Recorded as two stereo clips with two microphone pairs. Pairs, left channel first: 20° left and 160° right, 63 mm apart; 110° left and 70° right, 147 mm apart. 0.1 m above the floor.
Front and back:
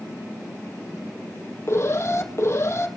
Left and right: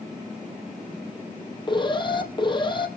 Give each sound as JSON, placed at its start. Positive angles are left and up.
{"t": 1.7, "sound": "an alarm", "azimuth_deg": 60, "distance_m": 2.0}